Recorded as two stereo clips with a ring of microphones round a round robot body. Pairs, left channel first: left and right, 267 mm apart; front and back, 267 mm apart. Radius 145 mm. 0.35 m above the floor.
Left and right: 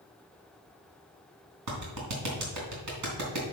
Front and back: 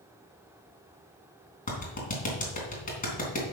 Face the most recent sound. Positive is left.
turn(degrees=-60)